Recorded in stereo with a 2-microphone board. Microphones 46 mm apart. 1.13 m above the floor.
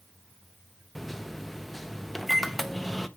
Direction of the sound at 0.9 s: 5° left (ahead or behind).